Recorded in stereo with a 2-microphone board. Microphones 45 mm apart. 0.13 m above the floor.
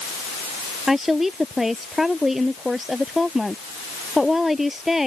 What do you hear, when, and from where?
0.9 s a woman speaking: 5° right (ahead or behind)